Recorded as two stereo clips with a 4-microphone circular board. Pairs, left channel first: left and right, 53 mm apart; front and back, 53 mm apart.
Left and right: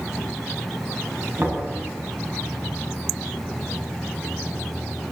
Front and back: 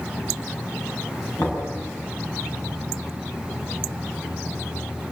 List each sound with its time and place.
1.4 s knocking: 35° right, 7.5 m